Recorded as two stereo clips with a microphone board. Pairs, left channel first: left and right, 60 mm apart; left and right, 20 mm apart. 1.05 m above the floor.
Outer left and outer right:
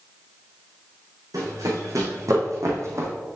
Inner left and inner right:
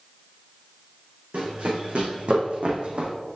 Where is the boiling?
No boiling in this recording.